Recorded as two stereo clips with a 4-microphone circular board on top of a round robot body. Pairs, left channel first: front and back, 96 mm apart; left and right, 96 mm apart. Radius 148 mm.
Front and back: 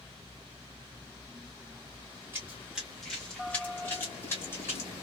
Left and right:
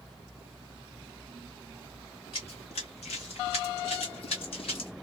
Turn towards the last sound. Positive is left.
turn(degrees=65)